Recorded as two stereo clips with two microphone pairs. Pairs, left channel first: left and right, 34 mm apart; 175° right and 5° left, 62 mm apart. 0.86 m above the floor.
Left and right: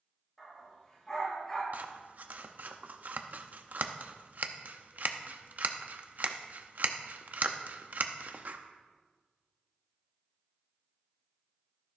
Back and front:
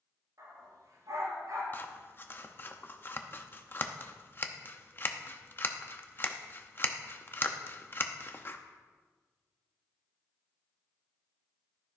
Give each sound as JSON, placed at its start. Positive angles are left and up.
{"t": 0.4, "sound": "a dog barking", "azimuth_deg": 20, "distance_m": 5.0}
{"t": 1.7, "sound": "scissors", "azimuth_deg": -120, "distance_m": 0.6}